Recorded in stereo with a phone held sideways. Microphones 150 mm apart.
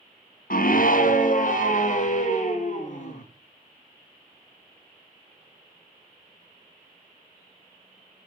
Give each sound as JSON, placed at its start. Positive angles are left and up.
{"t": 0.5, "sound": "a scream", "side_deg": 70, "distance_m": 0.9}